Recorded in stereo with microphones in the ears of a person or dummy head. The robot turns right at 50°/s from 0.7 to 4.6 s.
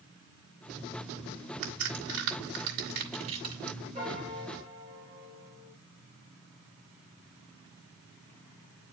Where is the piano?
145° right, 3 m; by 5.7 s 115° right, 3 m.